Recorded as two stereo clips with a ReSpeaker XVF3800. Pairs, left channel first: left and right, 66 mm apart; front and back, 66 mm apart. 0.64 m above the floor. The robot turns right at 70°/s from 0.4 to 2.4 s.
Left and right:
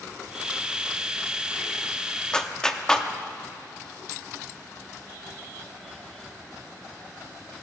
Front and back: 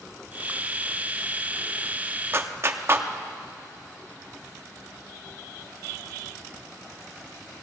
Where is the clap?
160° left, 0.7 m; by 3.1 s 165° left, 0.7 m.